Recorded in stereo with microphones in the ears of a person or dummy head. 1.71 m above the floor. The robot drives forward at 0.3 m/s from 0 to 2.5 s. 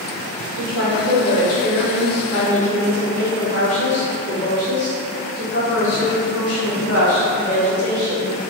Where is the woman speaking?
60° left (ahead or behind), 1.5 m; by 8.3 s 70° left (ahead or behind), 1.4 m.